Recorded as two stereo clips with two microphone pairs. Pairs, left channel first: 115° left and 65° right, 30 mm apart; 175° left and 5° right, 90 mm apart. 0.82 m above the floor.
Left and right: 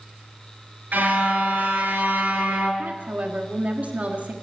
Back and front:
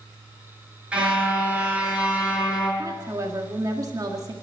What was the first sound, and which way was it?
A car horn, 80° right.